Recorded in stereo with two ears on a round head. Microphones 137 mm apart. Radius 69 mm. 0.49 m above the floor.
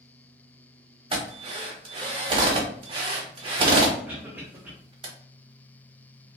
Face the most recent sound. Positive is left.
turn(degrees=-10)  # may be behind; listen again after turning